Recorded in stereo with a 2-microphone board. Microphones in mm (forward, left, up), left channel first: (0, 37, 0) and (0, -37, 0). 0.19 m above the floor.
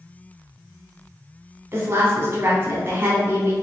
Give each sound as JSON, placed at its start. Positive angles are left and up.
{"t": 1.7, "sound": "a woman speaking", "side_deg": -35, "distance_m": 1.3}